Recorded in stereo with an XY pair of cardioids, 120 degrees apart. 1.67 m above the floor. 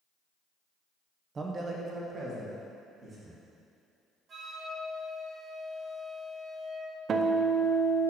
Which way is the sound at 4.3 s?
45° right.